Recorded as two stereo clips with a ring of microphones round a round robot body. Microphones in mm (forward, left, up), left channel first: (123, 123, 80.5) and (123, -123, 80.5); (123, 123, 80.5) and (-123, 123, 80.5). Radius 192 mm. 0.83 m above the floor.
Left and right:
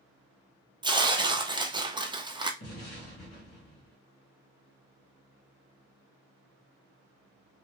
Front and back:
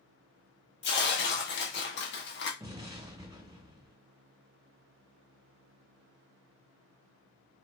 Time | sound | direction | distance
0.8 | tearing paper | 20° right | 0.6 m
2.6 | an explosion | 110° left | 0.7 m